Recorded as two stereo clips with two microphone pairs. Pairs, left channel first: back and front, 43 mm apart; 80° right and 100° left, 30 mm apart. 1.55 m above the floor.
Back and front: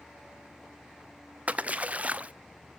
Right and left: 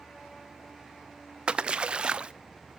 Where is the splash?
50° left, 0.5 m.